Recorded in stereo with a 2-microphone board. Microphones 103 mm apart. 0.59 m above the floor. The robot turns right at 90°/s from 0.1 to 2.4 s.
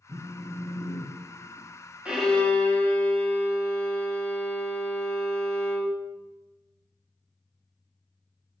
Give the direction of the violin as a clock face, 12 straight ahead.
12 o'clock.